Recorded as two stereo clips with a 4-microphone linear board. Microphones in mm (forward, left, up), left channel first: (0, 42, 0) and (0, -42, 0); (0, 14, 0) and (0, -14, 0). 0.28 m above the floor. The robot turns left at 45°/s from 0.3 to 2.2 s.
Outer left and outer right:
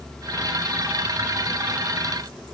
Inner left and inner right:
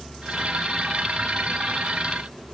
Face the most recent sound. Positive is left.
No sound to turn to.